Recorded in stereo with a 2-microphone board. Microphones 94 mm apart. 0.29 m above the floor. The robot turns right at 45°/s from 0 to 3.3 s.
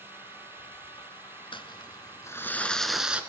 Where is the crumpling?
115° left, 1.2 m; by 3.2 s 170° right, 1.2 m.